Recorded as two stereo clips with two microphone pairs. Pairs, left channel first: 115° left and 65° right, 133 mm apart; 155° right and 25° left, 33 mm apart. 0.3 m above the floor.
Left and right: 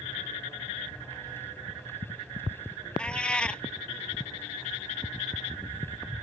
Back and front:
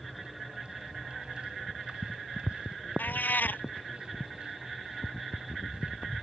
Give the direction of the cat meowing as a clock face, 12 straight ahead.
5 o'clock.